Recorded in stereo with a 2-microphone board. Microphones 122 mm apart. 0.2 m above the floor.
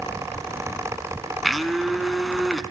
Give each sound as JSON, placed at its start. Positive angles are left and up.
{"t": 1.4, "sound": "a blender", "side_deg": 0, "distance_m": 0.8}